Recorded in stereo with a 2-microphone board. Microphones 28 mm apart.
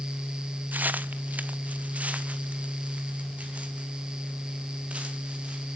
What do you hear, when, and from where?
0.7 s footsteps: 75° right (ahead or behind), 0.9 m; by 5.8 s 45° right (ahead or behind), 5.5 m